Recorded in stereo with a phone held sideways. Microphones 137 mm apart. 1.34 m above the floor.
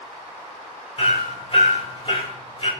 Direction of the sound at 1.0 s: 45° left (ahead or behind).